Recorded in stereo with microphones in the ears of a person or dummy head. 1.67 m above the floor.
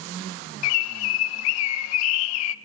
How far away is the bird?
About 0.6 m.